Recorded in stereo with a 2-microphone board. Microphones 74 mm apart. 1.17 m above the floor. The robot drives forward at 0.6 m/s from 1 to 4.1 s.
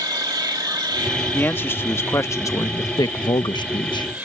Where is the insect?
60° right (ahead or behind); by 4.2 s 20° right (ahead or behind).